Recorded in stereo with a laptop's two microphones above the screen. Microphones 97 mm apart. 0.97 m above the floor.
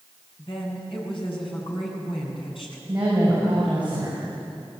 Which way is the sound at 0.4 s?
60° left (ahead or behind).